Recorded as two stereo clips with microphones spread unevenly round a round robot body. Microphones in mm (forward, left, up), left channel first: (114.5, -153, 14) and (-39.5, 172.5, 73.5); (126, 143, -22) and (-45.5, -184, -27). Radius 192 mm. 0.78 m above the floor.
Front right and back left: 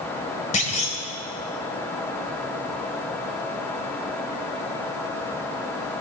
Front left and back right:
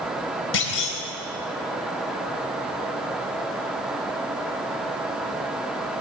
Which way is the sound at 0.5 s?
5° left.